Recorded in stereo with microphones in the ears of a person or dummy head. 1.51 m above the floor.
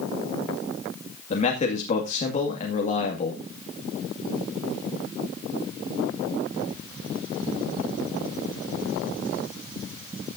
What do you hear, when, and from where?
1.3 s a man speaking: 35° left (ahead or behind), 2 m